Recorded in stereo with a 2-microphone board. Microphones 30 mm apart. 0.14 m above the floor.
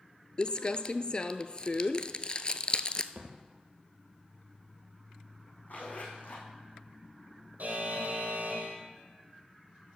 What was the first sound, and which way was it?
Crumpling, 35° left (ahead or behind).